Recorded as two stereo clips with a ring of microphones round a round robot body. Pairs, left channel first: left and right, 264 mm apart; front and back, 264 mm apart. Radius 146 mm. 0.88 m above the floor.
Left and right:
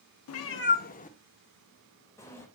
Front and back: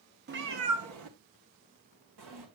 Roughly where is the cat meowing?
Behind left.